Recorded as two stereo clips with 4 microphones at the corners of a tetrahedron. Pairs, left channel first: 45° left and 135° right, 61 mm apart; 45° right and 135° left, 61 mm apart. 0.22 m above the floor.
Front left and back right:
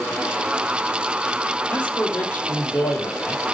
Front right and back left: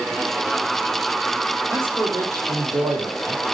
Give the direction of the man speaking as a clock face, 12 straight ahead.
8 o'clock.